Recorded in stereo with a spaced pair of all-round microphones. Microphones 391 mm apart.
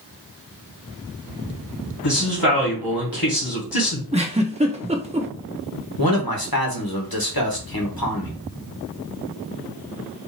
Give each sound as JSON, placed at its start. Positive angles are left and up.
{"t": 2.0, "sound": "a man speaking", "side_deg": 65, "distance_m": 2.0}
{"t": 4.1, "sound": "a giggle", "side_deg": -15, "distance_m": 0.7}
{"t": 6.0, "sound": "a man speaking", "side_deg": 65, "distance_m": 1.4}